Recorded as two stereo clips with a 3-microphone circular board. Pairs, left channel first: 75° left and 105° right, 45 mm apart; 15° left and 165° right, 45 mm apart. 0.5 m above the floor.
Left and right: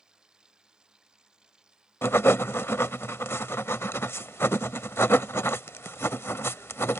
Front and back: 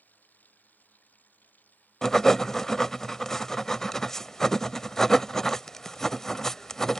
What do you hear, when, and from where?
0.0 s running water: 35° right
2.0 s writing: 95° left